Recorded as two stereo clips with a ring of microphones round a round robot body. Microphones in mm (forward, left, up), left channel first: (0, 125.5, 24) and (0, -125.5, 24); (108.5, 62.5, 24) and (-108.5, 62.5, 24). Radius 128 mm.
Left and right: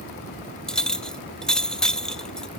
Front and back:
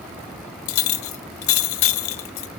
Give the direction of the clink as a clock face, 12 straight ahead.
12 o'clock.